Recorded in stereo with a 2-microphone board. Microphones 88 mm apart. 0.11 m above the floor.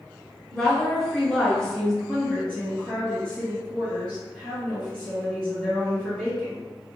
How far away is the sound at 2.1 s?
About 1.7 m.